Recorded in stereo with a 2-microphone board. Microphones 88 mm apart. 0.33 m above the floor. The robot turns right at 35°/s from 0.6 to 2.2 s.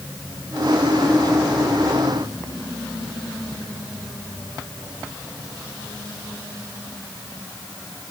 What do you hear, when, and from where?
Only background noise.